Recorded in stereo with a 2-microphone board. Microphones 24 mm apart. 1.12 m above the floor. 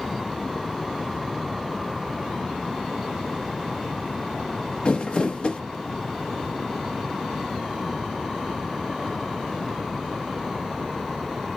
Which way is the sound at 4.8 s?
45° left (ahead or behind).